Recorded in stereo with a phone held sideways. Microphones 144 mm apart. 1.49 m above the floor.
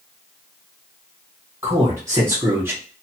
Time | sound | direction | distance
1.6 | a man speaking | 20° right (ahead or behind) | 1.6 m